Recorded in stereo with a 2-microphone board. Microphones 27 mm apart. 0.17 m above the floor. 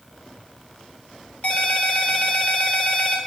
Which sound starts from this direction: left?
A ringtone, at 1.4 s.